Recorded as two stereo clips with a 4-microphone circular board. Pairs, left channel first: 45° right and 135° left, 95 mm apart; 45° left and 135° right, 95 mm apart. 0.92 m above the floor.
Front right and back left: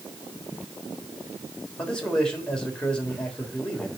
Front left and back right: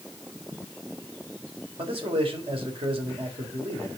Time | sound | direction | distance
1.8 | a man speaking | 125° right | 3.5 m